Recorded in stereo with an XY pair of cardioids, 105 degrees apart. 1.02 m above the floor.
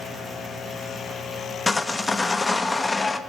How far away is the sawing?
About 0.9 m.